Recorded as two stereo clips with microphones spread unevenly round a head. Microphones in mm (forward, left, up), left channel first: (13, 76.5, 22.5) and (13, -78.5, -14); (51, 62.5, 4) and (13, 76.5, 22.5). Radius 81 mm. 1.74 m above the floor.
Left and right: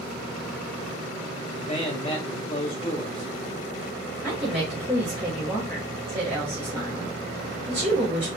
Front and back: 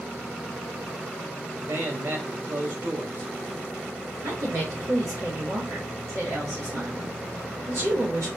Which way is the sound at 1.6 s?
145° left.